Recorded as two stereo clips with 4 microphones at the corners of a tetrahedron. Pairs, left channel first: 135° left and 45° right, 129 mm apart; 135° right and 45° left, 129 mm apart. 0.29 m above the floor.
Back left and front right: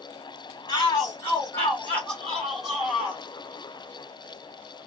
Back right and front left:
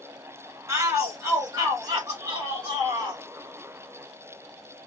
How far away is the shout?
About 2.0 m.